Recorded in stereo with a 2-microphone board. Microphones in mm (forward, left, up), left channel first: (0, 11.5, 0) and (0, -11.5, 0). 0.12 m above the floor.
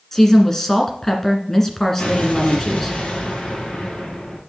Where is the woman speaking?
20° left (ahead or behind), 1.7 m.